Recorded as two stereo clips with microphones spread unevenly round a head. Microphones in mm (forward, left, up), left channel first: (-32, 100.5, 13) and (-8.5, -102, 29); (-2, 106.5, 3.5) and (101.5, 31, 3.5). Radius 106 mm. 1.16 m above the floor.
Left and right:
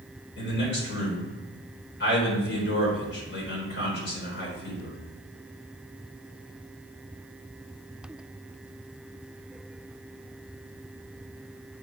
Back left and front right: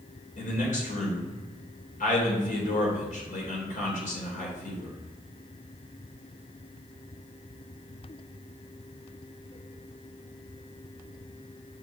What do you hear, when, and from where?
0.4 s a man speaking: 130° left, 4 m